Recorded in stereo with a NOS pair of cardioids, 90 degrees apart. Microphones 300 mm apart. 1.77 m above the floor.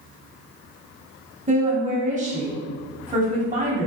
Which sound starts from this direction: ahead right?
A woman speaking, at 1.5 s.